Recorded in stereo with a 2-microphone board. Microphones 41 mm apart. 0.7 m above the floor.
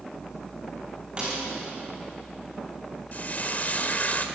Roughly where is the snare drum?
Right.